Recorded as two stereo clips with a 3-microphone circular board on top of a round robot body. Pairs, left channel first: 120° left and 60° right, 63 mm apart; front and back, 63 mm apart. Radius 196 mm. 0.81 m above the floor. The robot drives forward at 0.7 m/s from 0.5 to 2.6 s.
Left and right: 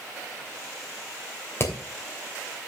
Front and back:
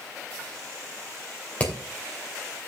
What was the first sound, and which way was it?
Hammering, 70° left.